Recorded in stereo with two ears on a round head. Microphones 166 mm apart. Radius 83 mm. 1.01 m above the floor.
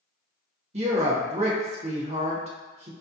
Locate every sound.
0.7 s a woman speaking: 35° right (ahead or behind), 0.9 m